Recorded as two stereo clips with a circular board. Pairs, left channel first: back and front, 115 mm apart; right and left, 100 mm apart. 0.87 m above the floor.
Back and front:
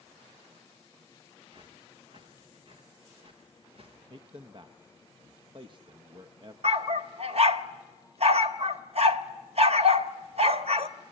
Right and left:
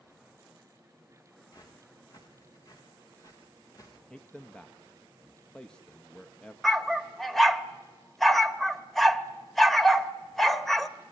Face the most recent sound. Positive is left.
turn(degrees=-5)